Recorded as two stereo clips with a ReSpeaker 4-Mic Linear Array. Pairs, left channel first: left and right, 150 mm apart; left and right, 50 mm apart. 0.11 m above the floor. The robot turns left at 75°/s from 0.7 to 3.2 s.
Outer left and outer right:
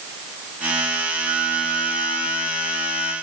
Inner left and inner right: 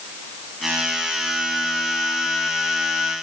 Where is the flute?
170° right, 5 m; by 3.1 s 45° left, 5 m.